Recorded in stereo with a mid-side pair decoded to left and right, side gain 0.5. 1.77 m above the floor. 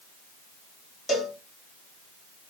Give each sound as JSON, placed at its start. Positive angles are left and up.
{"t": 1.1, "sound": "a cowbell", "azimuth_deg": 40, "distance_m": 1.7}